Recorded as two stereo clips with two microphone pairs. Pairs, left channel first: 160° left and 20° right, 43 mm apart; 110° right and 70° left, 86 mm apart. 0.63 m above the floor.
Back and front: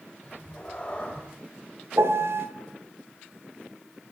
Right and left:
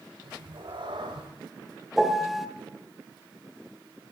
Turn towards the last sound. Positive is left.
turn(degrees=-15)